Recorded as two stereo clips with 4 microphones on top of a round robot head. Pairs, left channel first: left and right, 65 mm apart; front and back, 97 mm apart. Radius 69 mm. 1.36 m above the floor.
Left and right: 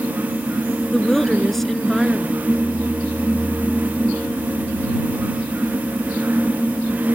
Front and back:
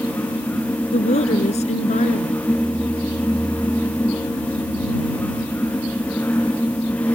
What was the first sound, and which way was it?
A woman speaking, 5° left.